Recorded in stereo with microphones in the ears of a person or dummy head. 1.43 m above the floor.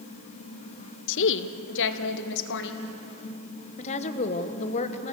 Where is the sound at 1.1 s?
65° left (ahead or behind), 0.9 m.